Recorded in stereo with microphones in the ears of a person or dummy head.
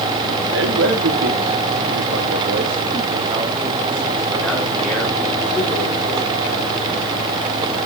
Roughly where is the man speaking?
Right.